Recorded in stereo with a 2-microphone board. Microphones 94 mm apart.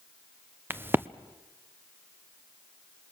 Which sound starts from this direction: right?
A crack, at 0.7 s.